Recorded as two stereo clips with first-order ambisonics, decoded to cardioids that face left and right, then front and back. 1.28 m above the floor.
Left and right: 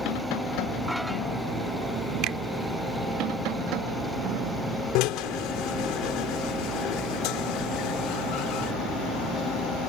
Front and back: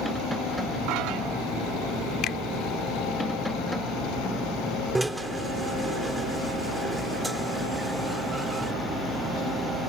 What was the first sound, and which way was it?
A finger snap, 50° right.